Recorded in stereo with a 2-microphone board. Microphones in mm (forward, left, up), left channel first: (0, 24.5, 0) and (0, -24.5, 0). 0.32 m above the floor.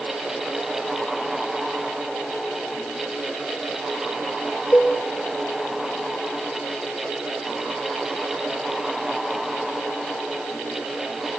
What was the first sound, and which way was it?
A cowbell, 40° left (ahead or behind).